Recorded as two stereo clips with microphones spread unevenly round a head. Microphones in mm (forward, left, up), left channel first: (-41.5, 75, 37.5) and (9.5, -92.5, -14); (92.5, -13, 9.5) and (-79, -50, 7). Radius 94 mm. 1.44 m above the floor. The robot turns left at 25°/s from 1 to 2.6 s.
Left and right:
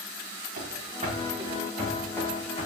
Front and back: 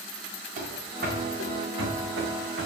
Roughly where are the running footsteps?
Behind right.